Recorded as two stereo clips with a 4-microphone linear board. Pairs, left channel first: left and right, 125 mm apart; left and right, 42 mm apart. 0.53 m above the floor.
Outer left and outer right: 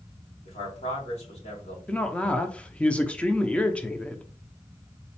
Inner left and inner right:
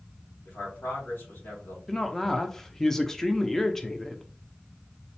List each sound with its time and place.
0.5 s a man speaking: 60° left (ahead or behind), 3.5 m
1.9 s a woman speaking: 10° left (ahead or behind), 0.6 m